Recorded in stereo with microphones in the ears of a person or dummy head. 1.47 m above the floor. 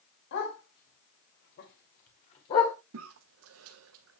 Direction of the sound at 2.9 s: 80° right.